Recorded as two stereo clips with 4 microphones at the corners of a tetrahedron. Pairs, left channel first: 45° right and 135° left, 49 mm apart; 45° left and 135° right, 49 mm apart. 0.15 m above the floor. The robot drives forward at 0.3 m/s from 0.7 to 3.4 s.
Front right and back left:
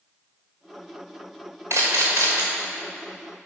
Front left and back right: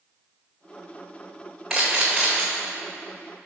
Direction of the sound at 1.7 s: 140° left.